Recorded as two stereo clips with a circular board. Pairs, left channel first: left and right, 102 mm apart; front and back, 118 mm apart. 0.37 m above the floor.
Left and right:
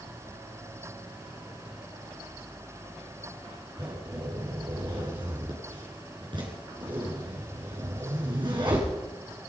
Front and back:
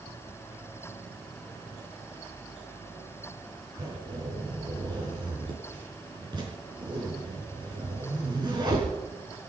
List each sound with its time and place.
3.8 s a zipper: 130° right, 5 m